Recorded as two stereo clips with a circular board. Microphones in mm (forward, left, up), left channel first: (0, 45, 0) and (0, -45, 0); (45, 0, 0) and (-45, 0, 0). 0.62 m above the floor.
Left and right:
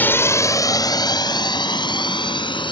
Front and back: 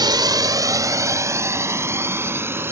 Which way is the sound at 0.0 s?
155° left.